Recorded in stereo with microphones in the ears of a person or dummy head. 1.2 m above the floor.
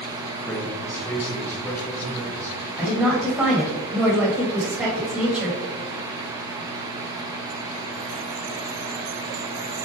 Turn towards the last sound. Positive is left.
turn(degrees=-10)  # may be behind; listen again after turning